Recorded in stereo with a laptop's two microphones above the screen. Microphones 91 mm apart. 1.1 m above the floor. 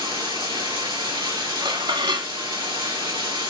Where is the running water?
60° right (ahead or behind), 2 m.